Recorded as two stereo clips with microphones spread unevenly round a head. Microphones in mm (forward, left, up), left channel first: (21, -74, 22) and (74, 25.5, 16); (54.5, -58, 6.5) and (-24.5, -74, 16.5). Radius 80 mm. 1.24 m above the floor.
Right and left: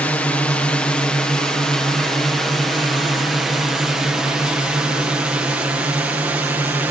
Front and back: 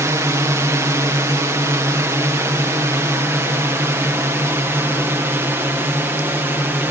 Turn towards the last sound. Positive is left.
turn(degrees=130)